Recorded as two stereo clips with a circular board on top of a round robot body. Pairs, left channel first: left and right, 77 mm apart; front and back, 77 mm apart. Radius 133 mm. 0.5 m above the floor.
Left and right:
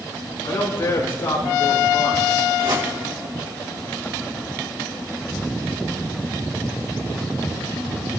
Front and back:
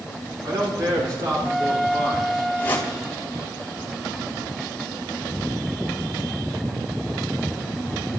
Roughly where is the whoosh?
Ahead right.